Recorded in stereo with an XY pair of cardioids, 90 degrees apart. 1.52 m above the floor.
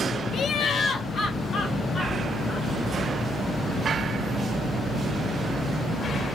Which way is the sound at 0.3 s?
65° left.